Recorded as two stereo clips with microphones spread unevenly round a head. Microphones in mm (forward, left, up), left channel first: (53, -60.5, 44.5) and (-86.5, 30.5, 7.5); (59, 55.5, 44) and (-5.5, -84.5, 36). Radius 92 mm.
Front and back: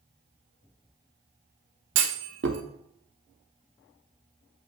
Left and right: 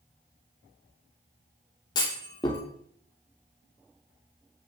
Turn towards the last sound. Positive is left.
turn(degrees=125)